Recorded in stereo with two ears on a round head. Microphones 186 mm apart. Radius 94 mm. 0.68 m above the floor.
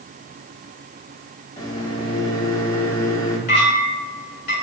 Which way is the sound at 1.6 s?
20° left (ahead or behind).